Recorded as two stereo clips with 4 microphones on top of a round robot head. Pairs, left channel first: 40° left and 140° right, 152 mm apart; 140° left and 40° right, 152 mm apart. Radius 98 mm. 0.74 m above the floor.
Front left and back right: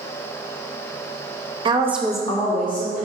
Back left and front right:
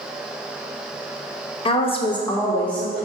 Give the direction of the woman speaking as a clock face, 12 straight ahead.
6 o'clock.